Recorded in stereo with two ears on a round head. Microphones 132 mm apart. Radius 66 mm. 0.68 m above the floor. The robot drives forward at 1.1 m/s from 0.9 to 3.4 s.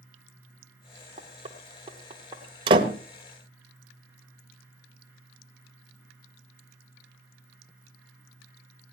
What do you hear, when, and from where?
1.2 s knocking: 45° right (ahead or behind), 1.7 m; by 2.4 s 30° right (ahead or behind), 2.5 m
2.7 s a door slam: 40° right (ahead or behind), 1.5 m; by 2.9 s 35° right (ahead or behind), 1.8 m